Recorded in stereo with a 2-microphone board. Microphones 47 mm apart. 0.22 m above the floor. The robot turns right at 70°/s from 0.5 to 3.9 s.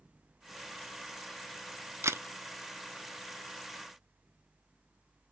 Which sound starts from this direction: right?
A camera shutter, at 2.0 s.